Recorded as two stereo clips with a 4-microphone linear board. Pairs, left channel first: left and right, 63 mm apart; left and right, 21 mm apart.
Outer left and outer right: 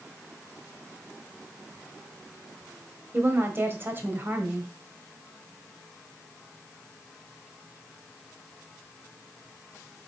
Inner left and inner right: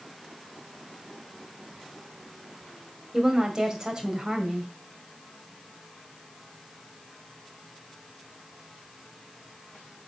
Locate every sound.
3.1 s a woman speaking: 35° right (ahead or behind), 1.9 m